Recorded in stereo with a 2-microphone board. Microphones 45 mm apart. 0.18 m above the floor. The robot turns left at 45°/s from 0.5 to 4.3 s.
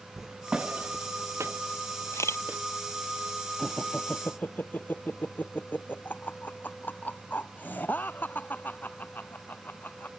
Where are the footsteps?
10° right (ahead or behind); by 2.6 s 50° right (ahead or behind).